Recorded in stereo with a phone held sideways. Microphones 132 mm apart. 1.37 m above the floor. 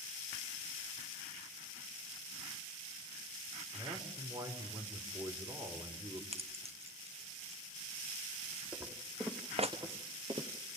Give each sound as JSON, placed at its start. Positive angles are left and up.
{"t": 3.7, "sound": "a man speaking", "side_deg": -30, "distance_m": 4.0}
{"t": 6.3, "sound": "keys jangling", "side_deg": -50, "distance_m": 0.9}
{"t": 8.7, "sound": "footsteps", "side_deg": -20, "distance_m": 3.5}